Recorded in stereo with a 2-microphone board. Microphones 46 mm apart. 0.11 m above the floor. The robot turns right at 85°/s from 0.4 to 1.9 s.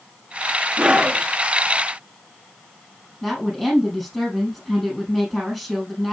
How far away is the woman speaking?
About 4.5 m.